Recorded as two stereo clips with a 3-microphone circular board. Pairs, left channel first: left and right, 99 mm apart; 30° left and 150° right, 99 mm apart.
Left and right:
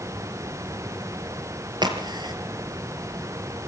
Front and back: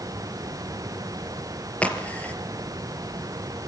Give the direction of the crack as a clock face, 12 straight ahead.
2 o'clock.